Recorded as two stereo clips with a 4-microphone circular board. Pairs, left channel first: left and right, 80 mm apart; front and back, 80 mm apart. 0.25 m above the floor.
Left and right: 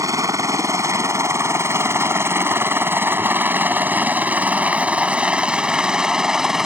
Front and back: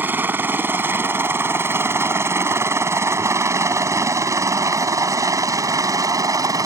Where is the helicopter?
120° right; by 6.7 s 170° right.